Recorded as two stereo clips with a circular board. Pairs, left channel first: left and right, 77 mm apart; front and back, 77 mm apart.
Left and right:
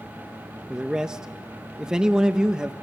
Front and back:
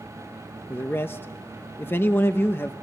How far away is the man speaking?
About 0.8 m.